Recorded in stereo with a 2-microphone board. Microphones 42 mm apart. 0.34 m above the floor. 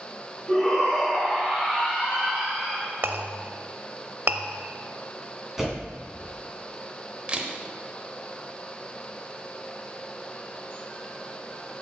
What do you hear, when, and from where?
0.5 s a shout: 5° left (ahead or behind), 3.5 m; by 2.9 s 20° right (ahead or behind), 4.5 m
3.0 s a clink: 55° right (ahead or behind), 0.6 m
5.6 s a door slam: 5° right (ahead or behind), 2 m
7.3 s a camera shutter: 25° right (ahead or behind), 0.8 m